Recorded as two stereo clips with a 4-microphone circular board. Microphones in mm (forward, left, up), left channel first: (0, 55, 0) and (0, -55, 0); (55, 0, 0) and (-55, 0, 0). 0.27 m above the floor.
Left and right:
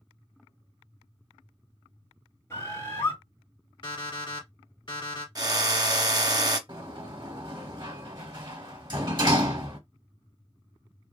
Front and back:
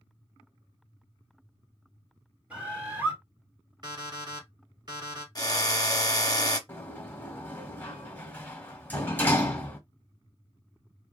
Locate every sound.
2.5 s a bird: 120° left, 1.4 m
3.8 s an alarm clock: 135° left, 1.4 m
5.3 s a drill: 45° right, 0.6 m
6.7 s a sliding door: 65° right, 0.9 m